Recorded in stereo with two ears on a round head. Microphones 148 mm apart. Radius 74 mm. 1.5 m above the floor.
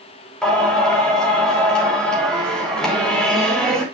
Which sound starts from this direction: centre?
Singing, at 0.4 s.